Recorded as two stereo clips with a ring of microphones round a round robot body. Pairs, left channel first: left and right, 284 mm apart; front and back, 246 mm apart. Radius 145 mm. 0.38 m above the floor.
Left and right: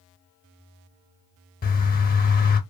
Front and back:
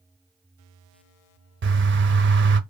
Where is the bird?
145° left, 0.6 m.